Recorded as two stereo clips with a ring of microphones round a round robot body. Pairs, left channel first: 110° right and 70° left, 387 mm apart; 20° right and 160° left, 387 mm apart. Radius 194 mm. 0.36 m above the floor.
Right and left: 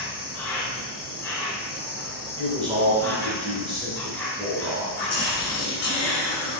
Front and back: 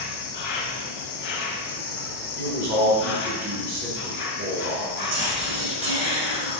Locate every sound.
0.0 s an insect: 30° right, 0.7 m
2.4 s a man speaking: 140° left, 1.0 m
5.0 s whispering: 135° right, 1.0 m